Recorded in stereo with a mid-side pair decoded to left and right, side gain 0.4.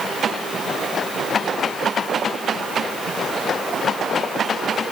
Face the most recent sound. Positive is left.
No sound to turn to.